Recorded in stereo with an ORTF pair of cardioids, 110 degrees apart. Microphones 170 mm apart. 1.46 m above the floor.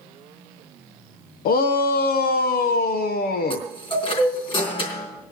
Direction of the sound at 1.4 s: 65° left.